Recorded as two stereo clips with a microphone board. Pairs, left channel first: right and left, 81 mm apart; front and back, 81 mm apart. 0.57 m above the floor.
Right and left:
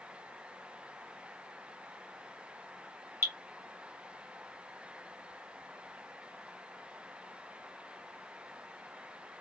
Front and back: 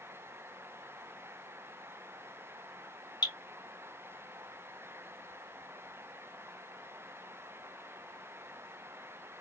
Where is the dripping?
30° left, 1.8 m.